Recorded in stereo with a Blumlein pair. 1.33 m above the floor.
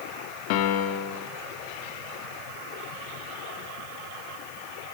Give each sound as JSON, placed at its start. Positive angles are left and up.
{"t": 0.5, "sound": "a piano", "azimuth_deg": 45, "distance_m": 3.0}